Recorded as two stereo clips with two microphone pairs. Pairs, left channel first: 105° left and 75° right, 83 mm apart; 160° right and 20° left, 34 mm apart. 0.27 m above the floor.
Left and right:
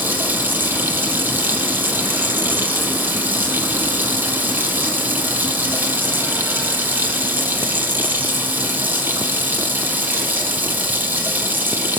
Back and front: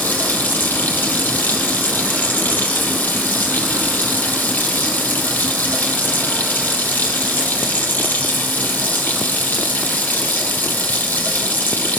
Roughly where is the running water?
Behind right.